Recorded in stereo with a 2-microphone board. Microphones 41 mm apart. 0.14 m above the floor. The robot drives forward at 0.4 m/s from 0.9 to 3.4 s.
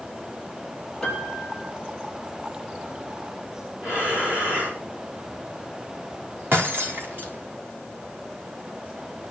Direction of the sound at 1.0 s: 15° left (ahead or behind).